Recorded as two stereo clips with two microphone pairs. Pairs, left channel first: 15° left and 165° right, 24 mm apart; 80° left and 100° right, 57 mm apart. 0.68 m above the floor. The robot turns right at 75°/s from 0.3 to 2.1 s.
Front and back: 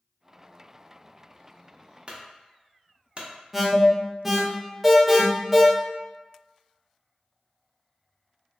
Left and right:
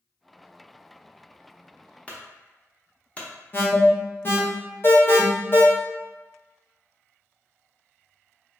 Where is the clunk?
145° left, 0.6 m.